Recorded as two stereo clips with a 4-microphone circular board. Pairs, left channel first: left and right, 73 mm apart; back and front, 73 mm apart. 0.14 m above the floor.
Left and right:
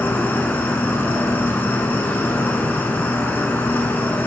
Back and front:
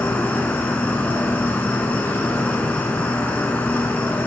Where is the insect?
130° left, 0.7 m.